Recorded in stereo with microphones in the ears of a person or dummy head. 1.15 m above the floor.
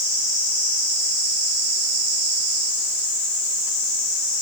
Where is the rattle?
I don't hear a rattle.